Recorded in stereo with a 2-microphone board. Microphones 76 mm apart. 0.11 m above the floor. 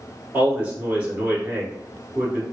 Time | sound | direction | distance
0.3 | a man speaking | 20° right (ahead or behind) | 1.3 m